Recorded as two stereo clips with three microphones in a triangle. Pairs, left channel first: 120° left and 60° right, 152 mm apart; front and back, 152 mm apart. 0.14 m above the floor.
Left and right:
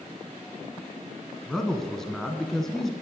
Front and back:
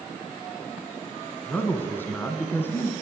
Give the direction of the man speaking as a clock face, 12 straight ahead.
11 o'clock.